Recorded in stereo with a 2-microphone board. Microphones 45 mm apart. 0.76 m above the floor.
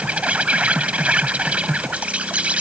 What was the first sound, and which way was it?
An insect, 30° right (ahead or behind).